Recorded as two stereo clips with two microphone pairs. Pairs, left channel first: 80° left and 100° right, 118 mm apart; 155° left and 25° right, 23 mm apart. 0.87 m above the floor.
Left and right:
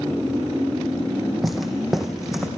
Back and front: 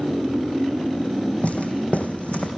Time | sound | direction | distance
1.4 | footsteps | 170° left | 2.5 m